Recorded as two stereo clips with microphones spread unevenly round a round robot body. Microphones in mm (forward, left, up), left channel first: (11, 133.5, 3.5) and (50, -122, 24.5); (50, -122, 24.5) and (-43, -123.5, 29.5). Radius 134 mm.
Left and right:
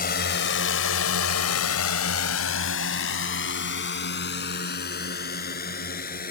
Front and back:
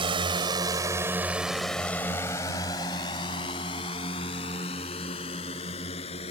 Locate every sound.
0.0 s a drone: 150° left; by 6.3 s 40° left